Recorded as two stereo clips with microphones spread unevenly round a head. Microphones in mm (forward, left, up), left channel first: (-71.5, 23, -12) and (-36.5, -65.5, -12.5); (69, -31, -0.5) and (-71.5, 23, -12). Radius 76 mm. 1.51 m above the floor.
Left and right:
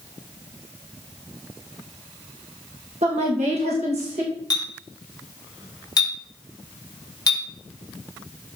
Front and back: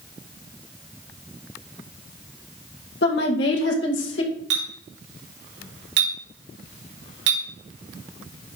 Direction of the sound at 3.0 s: 40° right.